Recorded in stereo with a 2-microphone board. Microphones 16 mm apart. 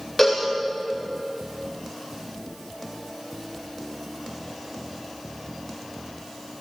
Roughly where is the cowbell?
Centre.